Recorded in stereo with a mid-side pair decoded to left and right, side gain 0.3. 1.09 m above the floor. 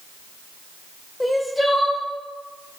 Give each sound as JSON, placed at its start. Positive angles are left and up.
{"t": 1.2, "sound": "crying", "azimuth_deg": 10, "distance_m": 1.0}